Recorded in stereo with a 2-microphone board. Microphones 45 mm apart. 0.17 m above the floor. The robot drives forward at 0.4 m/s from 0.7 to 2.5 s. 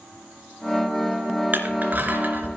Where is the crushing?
45° right (ahead or behind), 2.5 m.